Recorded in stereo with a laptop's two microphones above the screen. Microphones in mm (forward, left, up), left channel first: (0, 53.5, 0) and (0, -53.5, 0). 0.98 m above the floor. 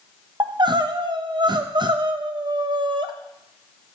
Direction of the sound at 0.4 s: 45° right (ahead or behind).